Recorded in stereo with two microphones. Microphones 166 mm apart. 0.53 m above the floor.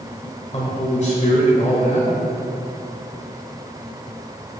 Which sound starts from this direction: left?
A man speaking, at 0.5 s.